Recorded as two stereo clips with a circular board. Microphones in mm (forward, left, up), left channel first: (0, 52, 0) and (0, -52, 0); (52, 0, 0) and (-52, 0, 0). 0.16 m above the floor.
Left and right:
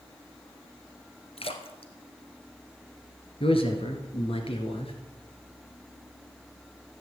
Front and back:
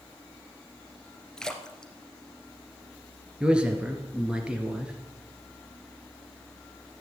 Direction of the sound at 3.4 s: 100° left.